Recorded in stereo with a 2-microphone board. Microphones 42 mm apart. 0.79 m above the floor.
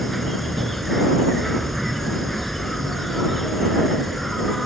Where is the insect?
Centre (ahead or behind).